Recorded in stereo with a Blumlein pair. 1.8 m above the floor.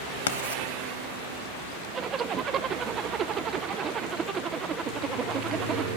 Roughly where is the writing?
Ahead left.